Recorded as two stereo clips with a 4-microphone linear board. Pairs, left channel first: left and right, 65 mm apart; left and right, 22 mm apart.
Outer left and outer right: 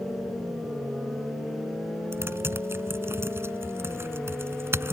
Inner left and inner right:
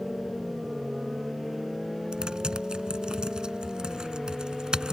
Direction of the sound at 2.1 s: 40° right (ahead or behind).